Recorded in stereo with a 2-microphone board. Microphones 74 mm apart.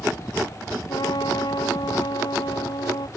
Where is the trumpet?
80° left.